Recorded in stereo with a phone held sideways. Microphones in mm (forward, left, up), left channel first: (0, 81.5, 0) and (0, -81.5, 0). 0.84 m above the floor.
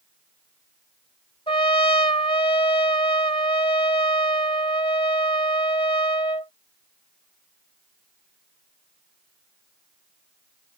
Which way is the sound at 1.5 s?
30° left (ahead or behind).